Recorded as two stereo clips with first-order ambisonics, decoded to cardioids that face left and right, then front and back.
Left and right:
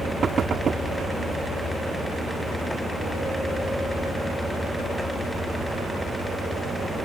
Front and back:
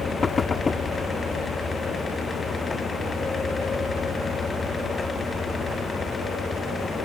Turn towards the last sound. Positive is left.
turn(degrees=-55)